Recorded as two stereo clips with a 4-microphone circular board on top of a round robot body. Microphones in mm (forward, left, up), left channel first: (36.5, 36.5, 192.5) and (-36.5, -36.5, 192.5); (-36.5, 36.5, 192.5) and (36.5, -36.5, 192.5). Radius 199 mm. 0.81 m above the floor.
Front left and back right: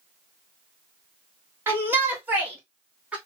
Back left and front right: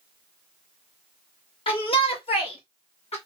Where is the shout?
160° left, 1.9 m; by 3.1 s 150° left, 2.5 m.